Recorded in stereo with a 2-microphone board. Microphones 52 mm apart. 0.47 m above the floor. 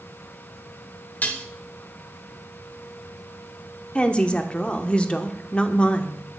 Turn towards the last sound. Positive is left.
turn(degrees=20)  # may be behind; listen again after turning